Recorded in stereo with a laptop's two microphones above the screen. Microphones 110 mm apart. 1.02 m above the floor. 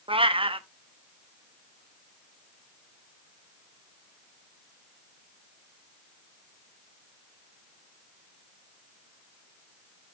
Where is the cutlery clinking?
No cutlery clinking in this recording.